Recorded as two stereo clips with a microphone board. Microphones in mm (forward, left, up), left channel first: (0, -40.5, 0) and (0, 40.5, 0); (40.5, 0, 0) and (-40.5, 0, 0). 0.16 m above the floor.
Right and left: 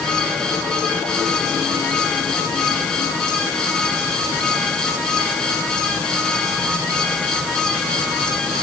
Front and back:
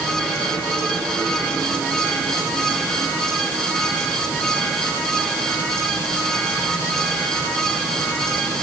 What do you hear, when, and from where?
Only background noise.